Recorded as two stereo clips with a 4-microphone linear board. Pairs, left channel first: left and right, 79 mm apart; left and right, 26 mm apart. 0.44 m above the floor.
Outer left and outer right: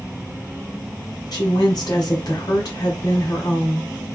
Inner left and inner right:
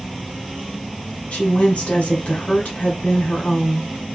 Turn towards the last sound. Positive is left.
turn(degrees=55)  # may be behind; listen again after turning